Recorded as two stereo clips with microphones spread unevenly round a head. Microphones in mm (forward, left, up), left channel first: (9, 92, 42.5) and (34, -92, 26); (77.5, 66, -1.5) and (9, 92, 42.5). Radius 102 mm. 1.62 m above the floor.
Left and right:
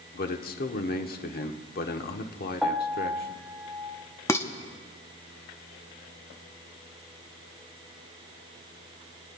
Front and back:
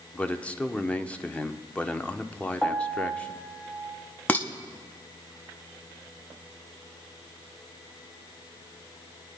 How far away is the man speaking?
About 0.9 m.